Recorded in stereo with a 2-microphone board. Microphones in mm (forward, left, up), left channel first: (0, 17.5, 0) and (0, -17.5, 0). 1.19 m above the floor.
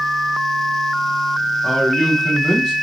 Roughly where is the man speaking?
Centre.